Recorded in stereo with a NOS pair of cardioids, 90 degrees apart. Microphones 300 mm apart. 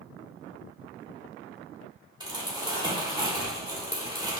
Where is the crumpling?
15° right, 1.8 m.